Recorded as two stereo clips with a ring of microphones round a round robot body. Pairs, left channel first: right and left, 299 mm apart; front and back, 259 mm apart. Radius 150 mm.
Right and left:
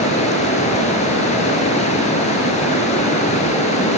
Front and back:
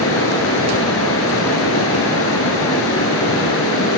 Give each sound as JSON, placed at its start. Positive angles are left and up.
{"t": 0.0, "sound": "running water", "azimuth_deg": -25, "distance_m": 1.4}